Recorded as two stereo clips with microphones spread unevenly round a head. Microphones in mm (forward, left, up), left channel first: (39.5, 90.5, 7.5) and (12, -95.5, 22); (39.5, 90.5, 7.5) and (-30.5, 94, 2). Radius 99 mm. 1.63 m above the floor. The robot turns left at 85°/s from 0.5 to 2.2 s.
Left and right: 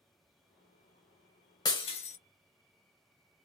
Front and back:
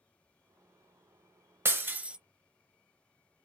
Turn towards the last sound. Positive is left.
turn(degrees=100)